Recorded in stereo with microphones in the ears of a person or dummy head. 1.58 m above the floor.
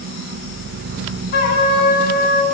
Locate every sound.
1.3 s a trumpet: 55° left (ahead or behind), 4 m